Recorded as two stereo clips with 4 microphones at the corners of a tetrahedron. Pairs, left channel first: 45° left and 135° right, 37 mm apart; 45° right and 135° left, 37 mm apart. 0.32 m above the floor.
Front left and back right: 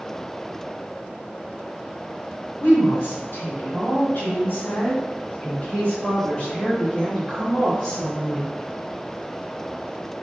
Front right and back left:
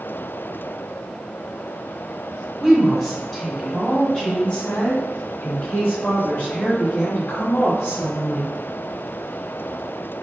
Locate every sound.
2.6 s a woman speaking: 55° left, 2 m; by 8.5 s 50° right, 3.5 m